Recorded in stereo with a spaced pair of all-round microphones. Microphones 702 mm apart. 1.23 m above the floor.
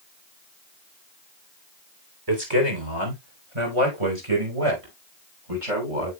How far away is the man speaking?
About 3.5 m.